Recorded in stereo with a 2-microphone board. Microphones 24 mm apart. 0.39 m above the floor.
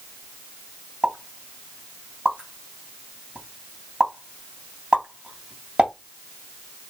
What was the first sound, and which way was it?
A pop, 50° right (ahead or behind).